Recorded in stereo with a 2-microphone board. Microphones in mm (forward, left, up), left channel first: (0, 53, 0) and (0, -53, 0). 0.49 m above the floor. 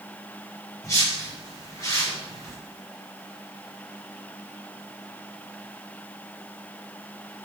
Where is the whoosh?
30° left (ahead or behind), 0.8 m.